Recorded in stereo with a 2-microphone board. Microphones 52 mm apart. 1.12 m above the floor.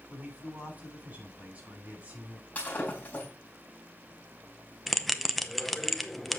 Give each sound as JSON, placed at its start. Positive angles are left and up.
{"t": 0.1, "sound": "a man speaking", "side_deg": -25, "distance_m": 7.0}
{"t": 2.5, "sound": "breaking glass", "side_deg": 30, "distance_m": 4.0}
{"t": 4.9, "sound": "a bell", "side_deg": 5, "distance_m": 0.8}